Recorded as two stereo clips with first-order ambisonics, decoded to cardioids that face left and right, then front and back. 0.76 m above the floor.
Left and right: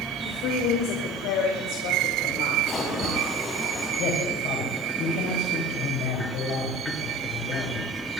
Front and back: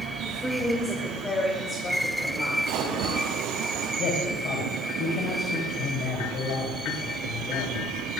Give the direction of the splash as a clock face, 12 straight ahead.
7 o'clock.